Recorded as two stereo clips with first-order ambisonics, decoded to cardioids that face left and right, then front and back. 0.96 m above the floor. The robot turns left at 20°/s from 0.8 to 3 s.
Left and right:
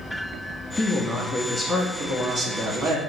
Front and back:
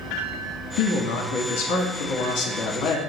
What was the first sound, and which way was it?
A man speaking, 10° left.